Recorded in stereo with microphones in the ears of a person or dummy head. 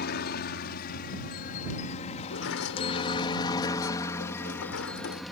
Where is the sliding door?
70° left (ahead or behind).